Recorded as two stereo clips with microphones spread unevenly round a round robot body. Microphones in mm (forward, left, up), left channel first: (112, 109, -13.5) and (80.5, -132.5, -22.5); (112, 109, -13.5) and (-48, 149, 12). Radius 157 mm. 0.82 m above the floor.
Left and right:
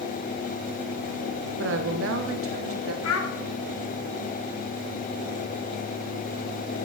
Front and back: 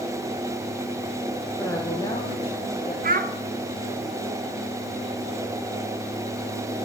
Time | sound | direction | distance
1.6 | a woman speaking | 90° right | 1.4 m
3.0 | a child speaking | 130° left | 1.3 m